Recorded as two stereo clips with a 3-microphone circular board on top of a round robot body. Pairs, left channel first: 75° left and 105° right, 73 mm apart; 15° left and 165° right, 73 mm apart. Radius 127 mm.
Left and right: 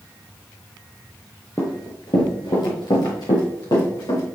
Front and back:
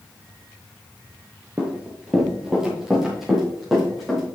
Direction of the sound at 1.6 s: 135° left.